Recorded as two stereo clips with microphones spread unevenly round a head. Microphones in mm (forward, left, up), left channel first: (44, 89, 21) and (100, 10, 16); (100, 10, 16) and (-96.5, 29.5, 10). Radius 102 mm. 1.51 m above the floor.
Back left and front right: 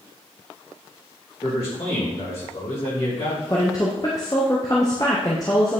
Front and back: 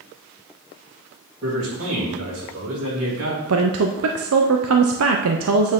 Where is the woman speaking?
160° right, 0.6 m.